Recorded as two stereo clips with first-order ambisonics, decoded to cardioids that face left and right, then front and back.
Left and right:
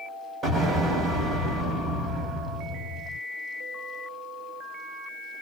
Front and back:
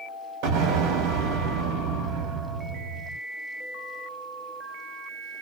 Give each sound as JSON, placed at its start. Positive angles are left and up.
{"t": 0.4, "sound": "an explosion", "azimuth_deg": -160, "distance_m": 1.1}